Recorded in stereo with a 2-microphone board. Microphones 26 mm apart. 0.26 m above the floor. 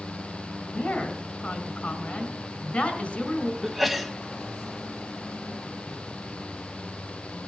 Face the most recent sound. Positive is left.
turn(degrees=-5)  # may be behind; listen again after turning